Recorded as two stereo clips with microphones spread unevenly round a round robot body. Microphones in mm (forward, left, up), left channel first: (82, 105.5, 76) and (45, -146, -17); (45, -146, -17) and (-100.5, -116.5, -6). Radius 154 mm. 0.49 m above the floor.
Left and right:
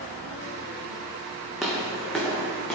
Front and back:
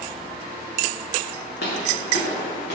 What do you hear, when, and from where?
1.6 s footsteps: 5° right, 2 m; by 2.8 s straight ahead, 3 m